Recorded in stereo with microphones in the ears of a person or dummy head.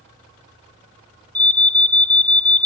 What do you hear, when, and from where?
1.4 s an alarm: 10° left (ahead or behind), 0.8 m